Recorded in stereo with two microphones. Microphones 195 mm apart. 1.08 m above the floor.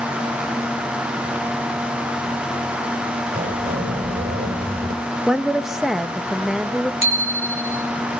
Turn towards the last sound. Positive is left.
turn(degrees=-85)